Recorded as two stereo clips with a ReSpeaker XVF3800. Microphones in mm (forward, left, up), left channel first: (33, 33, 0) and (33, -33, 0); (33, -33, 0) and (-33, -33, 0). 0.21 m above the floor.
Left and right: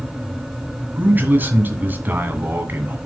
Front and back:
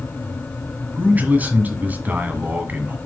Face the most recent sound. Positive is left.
turn(degrees=-130)